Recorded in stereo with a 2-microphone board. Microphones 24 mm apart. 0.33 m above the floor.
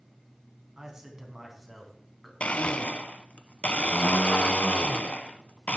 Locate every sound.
0.8 s a man speaking: 25° right (ahead or behind), 3.5 m; by 2.3 s 10° left (ahead or behind), 3.5 m
2.4 s a blender: 80° left, 0.6 m